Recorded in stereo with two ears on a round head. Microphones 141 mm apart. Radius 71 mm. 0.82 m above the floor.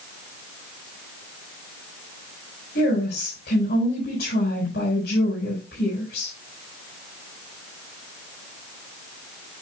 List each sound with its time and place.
2.8 s a woman speaking: 70° left (ahead or behind), 4.5 m